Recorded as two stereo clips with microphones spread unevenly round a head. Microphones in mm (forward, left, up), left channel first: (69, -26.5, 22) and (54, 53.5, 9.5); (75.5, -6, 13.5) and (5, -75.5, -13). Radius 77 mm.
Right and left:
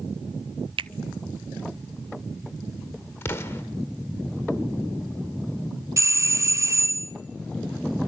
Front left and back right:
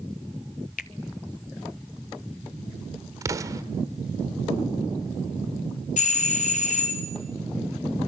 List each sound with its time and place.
0.8 s a finger snap: 80° left, 0.7 m
3.2 s an explosion: 75° right, 1.3 m
6.0 s a doorbell: 45° left, 1.2 m